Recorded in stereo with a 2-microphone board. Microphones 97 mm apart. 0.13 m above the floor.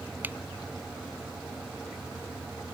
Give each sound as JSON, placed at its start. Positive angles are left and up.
{"t": 0.2, "sound": "a finger snap", "side_deg": -20}